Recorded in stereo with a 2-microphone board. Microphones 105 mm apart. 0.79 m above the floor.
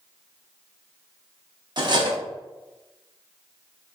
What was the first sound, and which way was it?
Cutlery clinking, 45° right (ahead or behind).